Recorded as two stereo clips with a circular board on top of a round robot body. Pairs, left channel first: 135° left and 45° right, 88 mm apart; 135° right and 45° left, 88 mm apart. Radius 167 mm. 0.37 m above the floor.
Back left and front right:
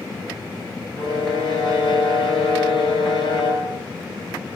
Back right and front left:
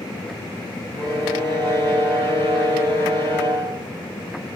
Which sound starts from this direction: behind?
A violin, at 1.0 s.